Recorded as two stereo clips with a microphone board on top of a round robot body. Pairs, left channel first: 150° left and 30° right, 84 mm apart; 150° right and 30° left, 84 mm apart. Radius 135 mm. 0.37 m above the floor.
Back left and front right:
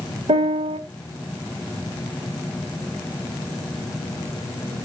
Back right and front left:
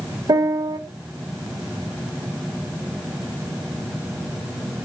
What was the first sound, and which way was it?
A piano, 15° right.